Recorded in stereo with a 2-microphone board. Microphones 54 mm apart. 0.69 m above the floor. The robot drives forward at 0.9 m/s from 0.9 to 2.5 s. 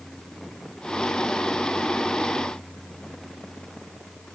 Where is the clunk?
No clunk in this recording.